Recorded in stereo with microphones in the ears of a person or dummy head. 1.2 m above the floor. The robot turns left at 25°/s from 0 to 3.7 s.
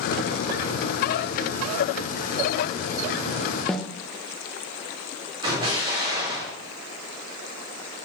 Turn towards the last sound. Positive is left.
turn(degrees=-25)  # may be behind; listen again after turning